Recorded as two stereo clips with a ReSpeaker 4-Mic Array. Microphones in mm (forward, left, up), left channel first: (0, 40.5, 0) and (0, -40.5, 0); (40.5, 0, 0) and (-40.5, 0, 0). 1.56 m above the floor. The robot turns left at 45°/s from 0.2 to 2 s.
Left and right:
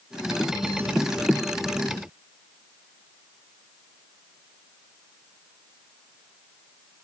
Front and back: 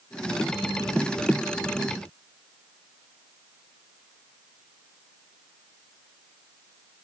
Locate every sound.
Only background noise.